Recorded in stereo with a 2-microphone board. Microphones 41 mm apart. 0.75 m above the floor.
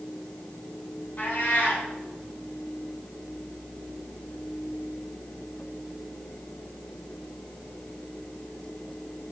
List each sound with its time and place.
1.2 s a cat meowing: 50° left (ahead or behind), 3.5 m